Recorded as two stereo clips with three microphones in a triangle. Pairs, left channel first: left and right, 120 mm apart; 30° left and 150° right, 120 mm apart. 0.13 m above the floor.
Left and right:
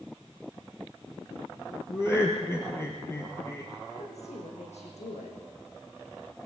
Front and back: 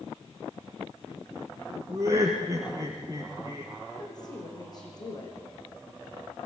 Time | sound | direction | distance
1.9 | laughter | 150° left | 2.5 m
3.9 | a woman speaking | 80° left | 6.5 m